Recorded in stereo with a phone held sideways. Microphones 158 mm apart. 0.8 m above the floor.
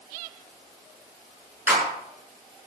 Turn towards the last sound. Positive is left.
turn(degrees=-15)  # may be behind; listen again after turning